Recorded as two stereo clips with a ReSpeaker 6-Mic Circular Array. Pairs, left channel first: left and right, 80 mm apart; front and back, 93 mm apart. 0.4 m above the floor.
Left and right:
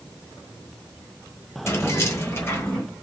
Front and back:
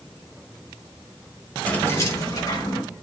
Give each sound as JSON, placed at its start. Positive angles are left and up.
{"t": 1.7, "sound": "keys jangling", "azimuth_deg": 65, "distance_m": 1.0}